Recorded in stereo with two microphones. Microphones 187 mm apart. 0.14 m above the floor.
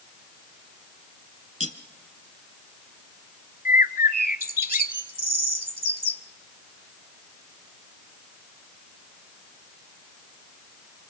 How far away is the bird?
About 0.7 m.